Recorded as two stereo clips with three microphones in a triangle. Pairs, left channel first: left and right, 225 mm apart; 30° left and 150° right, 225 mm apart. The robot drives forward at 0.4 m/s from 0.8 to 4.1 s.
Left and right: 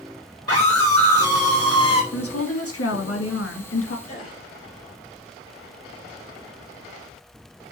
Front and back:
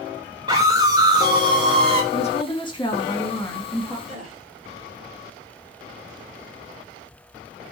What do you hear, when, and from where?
0.5 s a scream: 80° right, 2.5 m; by 2.0 s 90° right, 2.5 m
2.1 s a woman speaking: 90° left, 1.6 m; by 4.0 s 115° left, 1.8 m
4.1 s a gasp: 150° left, 3 m